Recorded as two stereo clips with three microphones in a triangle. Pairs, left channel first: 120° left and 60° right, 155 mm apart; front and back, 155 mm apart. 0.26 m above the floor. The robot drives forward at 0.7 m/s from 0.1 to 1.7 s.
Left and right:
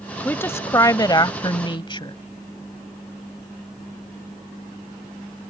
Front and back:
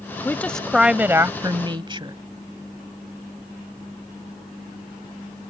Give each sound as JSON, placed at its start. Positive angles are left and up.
{"t": 0.2, "sound": "a woman speaking", "azimuth_deg": 55}